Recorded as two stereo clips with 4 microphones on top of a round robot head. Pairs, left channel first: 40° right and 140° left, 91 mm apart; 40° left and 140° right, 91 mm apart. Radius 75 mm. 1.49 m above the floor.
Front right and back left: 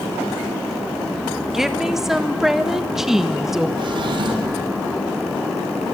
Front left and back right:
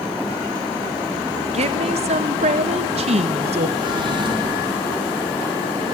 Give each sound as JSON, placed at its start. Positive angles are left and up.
{"t": 1.5, "sound": "a woman speaking", "azimuth_deg": -135, "distance_m": 1.5}
{"t": 3.8, "sound": "a drawer", "azimuth_deg": 180, "distance_m": 3.5}